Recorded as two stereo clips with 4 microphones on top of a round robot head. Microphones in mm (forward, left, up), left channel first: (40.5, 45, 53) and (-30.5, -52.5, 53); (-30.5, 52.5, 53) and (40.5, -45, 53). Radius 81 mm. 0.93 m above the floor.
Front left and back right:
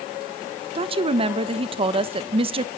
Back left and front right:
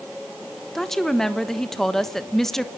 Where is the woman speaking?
150° right, 1.2 m.